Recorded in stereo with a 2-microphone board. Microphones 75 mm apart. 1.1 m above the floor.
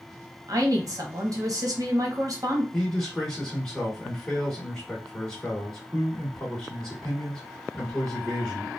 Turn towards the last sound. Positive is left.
turn(degrees=10)  # may be behind; listen again after turning